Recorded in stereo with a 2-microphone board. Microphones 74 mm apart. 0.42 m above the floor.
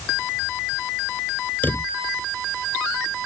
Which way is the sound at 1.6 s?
25° left (ahead or behind).